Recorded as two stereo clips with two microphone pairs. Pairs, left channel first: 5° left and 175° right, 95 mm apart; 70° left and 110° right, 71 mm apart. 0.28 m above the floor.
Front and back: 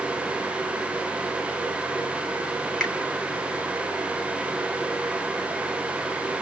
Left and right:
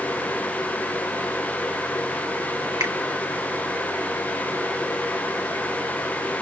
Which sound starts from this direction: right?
A finger snap, at 2.8 s.